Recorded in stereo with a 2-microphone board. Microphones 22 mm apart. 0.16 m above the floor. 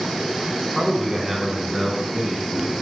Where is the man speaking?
20° right (ahead or behind), 1.0 m; by 2.7 s 15° right (ahead or behind), 1.7 m.